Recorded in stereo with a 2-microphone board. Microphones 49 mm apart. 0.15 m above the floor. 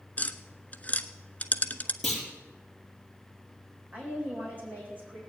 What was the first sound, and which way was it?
Tapping, 35° left (ahead or behind).